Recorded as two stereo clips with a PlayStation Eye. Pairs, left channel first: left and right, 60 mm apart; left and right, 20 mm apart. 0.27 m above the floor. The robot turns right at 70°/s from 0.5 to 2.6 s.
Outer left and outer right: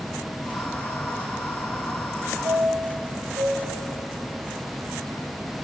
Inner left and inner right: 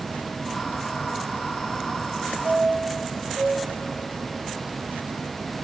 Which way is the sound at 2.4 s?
75° right (ahead or behind).